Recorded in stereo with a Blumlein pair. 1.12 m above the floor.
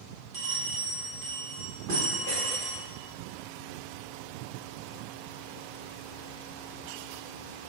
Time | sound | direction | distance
0.3 | a bell | 45° right | 1.0 m